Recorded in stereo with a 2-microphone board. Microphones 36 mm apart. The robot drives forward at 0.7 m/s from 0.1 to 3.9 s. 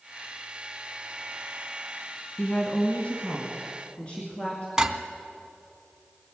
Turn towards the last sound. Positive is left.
turn(degrees=-20)  # may be behind; listen again after turning